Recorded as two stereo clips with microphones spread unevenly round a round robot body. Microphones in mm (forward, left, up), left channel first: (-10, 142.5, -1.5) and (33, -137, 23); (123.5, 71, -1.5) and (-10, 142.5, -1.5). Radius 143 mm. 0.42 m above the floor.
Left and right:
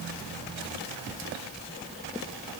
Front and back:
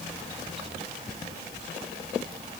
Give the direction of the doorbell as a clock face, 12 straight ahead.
No doorbell in this recording.